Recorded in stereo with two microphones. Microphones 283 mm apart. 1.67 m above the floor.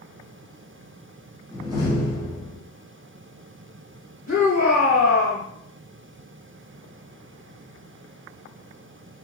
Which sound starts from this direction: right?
A shout, at 4.3 s.